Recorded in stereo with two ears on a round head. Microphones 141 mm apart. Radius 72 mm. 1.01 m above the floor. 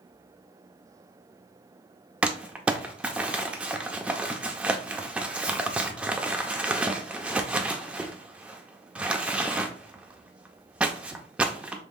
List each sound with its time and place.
2.2 s crumpling: 10° right (ahead or behind), 0.7 m